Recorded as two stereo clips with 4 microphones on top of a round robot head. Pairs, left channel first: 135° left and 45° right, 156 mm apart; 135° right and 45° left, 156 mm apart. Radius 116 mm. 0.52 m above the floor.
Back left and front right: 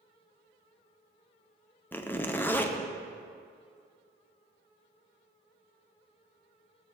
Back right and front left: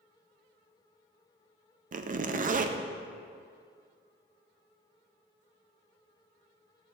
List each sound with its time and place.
1.9 s a zipper: 60° left, 0.6 m